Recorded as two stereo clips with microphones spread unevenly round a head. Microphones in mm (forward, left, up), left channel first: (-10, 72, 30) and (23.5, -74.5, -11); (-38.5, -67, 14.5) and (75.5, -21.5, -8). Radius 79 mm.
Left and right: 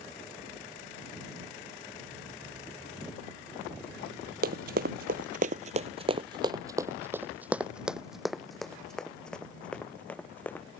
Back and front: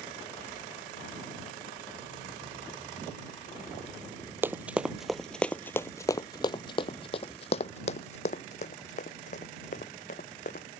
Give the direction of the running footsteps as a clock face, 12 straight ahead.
2 o'clock.